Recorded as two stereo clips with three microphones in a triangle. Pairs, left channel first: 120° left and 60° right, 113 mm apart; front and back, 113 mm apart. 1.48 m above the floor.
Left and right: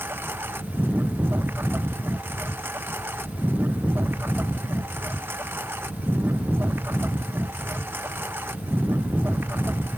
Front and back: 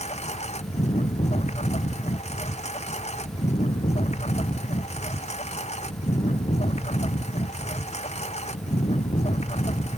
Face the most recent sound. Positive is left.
turn(degrees=10)